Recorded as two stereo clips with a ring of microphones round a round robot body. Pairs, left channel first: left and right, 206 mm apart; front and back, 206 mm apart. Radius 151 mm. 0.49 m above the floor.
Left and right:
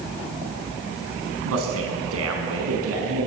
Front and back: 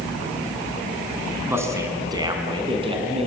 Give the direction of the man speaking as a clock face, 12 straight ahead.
3 o'clock.